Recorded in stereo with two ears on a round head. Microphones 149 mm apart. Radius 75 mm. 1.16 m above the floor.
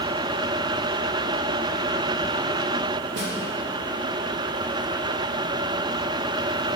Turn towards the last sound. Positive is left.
turn(degrees=-80)